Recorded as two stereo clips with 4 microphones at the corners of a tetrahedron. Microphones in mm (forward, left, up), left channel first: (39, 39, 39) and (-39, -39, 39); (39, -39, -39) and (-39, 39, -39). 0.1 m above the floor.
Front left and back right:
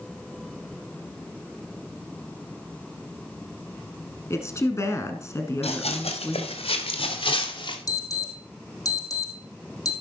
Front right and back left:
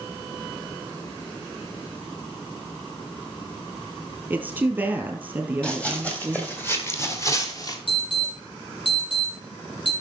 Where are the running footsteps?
35° left, 3 m; by 7.8 s 10° left, 2.5 m.